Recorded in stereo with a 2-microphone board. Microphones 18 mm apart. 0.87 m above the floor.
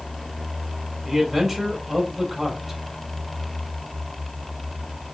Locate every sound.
1.0 s a man speaking: 25° right (ahead or behind), 2.5 m